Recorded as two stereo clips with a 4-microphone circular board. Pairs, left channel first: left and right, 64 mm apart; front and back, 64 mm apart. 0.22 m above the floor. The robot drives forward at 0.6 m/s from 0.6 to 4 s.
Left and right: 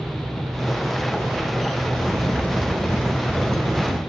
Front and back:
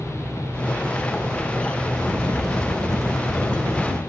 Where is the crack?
145° right, 3.5 m; by 4.0 s 155° right, 5 m.